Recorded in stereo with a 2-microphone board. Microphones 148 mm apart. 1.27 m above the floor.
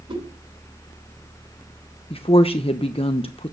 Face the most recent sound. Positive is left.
turn(degrees=40)  # may be behind; listen again after turning